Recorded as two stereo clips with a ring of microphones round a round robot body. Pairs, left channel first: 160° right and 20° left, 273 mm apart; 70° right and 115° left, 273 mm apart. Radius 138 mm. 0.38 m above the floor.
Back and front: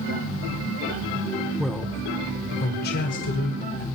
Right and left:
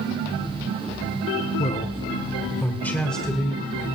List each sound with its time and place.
1.6 s a man speaking: 65° right, 1.4 m; by 3.9 s 160° right, 2 m